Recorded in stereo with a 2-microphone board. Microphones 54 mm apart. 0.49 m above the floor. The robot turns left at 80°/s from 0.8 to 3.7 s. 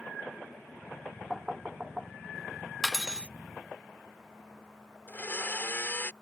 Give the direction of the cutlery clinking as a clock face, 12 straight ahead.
12 o'clock.